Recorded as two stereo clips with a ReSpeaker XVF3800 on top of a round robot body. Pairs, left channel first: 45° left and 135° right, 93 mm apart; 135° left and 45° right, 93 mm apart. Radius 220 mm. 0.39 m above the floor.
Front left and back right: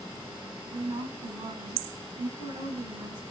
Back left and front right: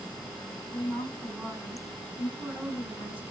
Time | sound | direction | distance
0.7 | a woman speaking | 155° right | 6.5 m